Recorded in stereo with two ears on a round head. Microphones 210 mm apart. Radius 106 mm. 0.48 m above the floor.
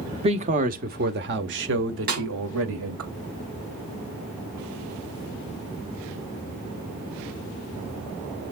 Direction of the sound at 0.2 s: 25° right (ahead or behind).